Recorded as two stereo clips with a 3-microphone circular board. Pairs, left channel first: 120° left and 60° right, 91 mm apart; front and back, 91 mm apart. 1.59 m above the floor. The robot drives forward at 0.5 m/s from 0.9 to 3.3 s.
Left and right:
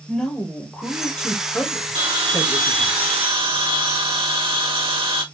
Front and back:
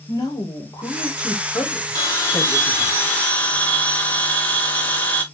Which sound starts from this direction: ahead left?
A woman speaking, at 0.1 s.